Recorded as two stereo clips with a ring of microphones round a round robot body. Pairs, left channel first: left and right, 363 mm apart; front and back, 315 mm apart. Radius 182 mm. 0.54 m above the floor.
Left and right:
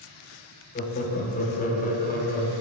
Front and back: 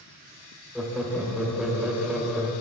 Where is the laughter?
95° left, 0.6 m.